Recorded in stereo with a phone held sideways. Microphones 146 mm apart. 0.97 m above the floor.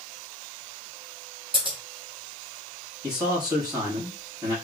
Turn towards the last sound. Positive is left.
turn(degrees=-25)  # may be behind; listen again after turning